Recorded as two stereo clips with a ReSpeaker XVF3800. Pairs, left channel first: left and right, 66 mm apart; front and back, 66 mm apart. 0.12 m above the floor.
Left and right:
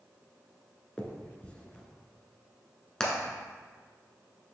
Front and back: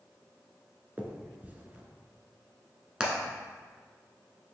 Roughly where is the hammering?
Behind left.